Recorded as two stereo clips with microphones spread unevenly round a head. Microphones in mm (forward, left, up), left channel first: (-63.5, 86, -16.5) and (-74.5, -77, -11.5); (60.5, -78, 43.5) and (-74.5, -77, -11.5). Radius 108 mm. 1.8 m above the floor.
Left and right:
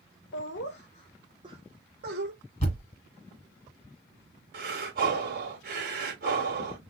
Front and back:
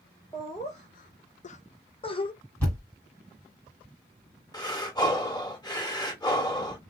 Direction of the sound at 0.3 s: 75° left.